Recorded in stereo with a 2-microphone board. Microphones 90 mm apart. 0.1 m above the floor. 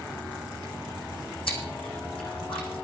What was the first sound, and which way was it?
Chewing, 75° left (ahead or behind).